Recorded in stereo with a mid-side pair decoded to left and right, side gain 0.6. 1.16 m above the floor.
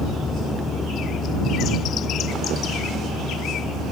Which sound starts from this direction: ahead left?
A vehicle, at 0.0 s.